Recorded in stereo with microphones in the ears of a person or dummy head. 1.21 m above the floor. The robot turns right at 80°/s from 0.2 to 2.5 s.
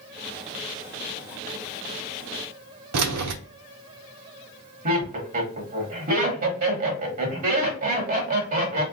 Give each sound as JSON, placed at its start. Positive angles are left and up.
{"t": 2.9, "sound": "keys jangling", "side_deg": -85, "distance_m": 0.5}
{"t": 4.8, "sound": "laughter", "side_deg": -45, "distance_m": 1.7}